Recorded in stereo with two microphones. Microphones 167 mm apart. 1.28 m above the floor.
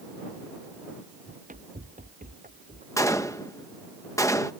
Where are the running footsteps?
45° right (ahead or behind); by 2.9 s 55° right (ahead or behind).